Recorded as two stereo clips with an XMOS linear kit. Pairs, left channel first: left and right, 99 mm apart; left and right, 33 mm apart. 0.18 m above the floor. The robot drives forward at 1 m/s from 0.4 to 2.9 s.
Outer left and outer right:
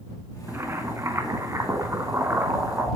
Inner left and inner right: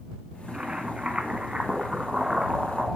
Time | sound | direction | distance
0.5 | boiling | 25° right (ahead or behind) | 1.7 m